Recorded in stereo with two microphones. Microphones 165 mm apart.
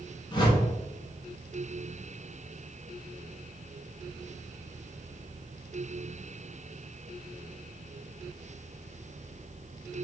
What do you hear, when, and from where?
0.3 s a whoosh: 30° left (ahead or behind), 0.8 m